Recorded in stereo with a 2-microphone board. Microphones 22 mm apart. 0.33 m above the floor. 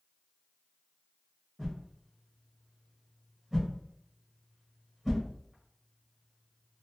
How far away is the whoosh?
About 1.5 m.